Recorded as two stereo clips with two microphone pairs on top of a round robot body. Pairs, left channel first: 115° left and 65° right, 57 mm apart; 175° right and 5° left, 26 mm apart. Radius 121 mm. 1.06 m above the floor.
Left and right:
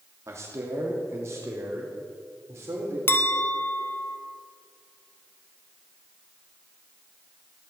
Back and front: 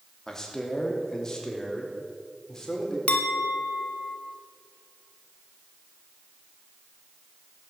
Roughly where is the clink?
Behind left.